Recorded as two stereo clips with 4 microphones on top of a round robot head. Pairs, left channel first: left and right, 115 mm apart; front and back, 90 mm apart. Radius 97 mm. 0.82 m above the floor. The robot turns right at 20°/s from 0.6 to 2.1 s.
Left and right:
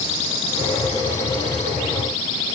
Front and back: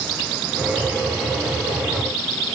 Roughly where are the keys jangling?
I don't hear keys jangling.